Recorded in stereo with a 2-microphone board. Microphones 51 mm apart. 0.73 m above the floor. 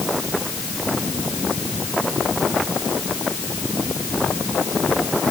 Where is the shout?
I don't hear a shout.